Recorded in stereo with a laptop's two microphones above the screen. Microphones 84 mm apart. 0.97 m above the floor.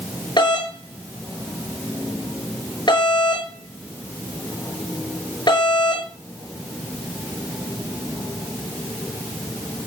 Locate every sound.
0.4 s a doorbell: 65° left (ahead or behind), 6 m